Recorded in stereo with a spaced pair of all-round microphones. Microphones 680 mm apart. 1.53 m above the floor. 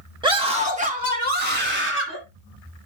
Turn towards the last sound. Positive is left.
turn(degrees=-15)  # may be behind; listen again after turning